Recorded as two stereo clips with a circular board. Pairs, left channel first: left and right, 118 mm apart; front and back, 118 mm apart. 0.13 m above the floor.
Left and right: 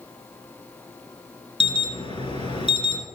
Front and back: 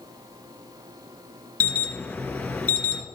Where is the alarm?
75° left, 2 m.